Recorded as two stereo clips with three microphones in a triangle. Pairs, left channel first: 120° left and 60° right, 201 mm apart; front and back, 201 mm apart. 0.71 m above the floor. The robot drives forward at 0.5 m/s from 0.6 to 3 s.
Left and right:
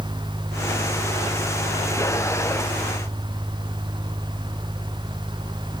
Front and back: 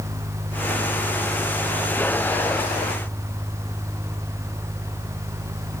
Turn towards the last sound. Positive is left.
No sound to turn to.